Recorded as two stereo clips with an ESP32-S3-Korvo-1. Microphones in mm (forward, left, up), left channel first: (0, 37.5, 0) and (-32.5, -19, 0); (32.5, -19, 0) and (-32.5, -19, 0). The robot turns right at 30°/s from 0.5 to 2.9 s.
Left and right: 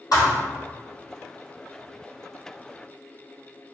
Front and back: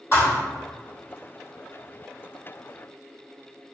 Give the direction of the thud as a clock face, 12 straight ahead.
11 o'clock.